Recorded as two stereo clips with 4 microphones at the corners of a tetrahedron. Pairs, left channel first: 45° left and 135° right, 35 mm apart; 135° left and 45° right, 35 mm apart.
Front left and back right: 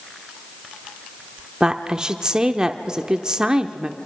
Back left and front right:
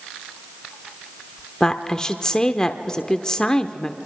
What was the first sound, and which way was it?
A woman speaking, 175° right.